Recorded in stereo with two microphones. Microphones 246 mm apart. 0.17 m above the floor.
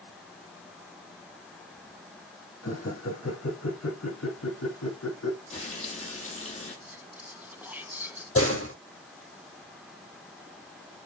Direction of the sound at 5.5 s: 30° left (ahead or behind).